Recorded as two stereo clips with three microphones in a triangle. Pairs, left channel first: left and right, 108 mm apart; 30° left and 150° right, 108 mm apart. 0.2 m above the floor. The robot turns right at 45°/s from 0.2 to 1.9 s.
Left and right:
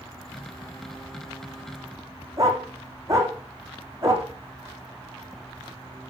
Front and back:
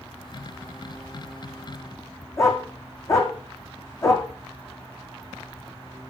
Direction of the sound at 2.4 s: 30° right.